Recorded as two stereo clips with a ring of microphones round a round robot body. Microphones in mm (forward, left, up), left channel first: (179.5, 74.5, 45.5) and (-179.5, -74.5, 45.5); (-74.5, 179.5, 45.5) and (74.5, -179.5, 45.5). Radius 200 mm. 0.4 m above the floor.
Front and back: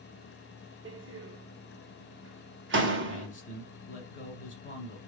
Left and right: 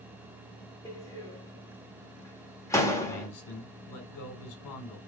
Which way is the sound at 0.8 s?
175° right.